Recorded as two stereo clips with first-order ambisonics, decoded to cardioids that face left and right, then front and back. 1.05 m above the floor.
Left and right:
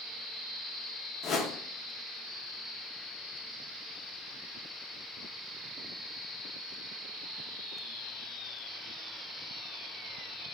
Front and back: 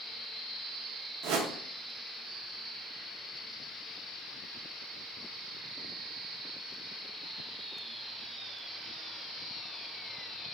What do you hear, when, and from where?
1.2 s a whoosh: 150° left, 0.6 m